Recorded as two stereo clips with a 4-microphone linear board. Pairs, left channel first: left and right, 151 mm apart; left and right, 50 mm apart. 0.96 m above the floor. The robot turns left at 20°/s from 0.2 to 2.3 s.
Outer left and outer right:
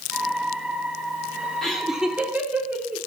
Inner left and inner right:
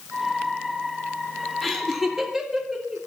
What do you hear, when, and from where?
1.6 s laughter: 5° left (ahead or behind), 2.5 m; by 3.0 s 10° right (ahead or behind), 2.5 m